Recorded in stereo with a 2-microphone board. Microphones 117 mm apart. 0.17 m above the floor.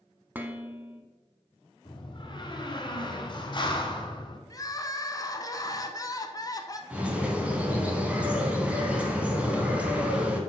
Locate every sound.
0.3 s dishes clattering: 15° right (ahead or behind), 0.7 m
1.9 s a door slam: 40° left (ahead or behind), 1.0 m
4.5 s crying: 30° left (ahead or behind), 0.6 m
6.9 s a bird: 10° right (ahead or behind), 1.1 m